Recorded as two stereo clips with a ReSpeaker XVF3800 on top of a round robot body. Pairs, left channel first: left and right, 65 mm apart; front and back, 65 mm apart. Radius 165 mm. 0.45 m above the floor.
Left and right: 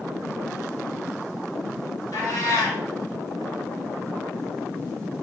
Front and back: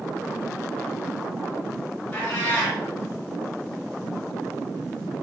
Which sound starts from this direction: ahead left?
A cat meowing, at 2.1 s.